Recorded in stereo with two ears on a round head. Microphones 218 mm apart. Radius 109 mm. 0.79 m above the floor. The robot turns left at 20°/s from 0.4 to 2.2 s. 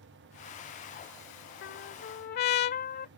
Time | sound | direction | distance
1.6 | a trumpet | 50° left (ahead or behind) | ?